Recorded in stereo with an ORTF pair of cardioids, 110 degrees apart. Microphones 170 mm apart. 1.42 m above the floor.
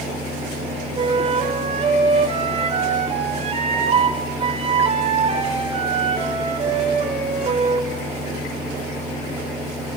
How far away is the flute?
About 6.5 m.